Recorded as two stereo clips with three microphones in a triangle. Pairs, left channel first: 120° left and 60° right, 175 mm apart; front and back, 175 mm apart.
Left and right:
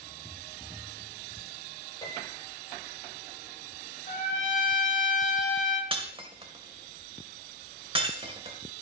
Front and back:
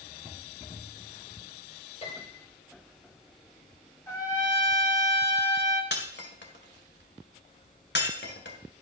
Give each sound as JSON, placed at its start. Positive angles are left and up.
{"t": 2.0, "sound": "a piano", "azimuth_deg": 55, "distance_m": 9.5}
{"t": 4.1, "sound": "a trumpet", "azimuth_deg": 75, "distance_m": 7.0}
{"t": 5.9, "sound": "breaking glass", "azimuth_deg": 0, "distance_m": 2.5}